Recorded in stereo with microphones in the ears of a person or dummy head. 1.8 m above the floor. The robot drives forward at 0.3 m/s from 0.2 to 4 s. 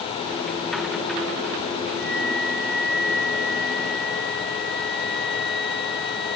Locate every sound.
2.0 s a flute: 5° left (ahead or behind); by 6.4 s centre (ahead or behind)